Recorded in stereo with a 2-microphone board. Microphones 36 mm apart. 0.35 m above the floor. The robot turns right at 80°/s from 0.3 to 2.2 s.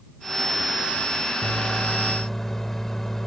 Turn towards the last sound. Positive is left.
turn(degrees=25)